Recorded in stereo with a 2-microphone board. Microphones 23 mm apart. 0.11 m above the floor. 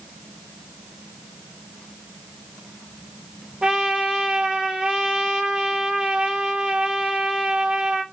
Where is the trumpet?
40° right (ahead or behind), 1.0 m.